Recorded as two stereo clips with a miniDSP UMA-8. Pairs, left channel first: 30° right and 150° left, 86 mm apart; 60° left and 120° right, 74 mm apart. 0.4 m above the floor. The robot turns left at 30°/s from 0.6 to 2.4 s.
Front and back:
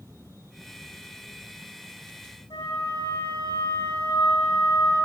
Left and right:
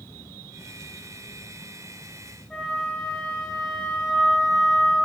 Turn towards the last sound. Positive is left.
turn(degrees=-30)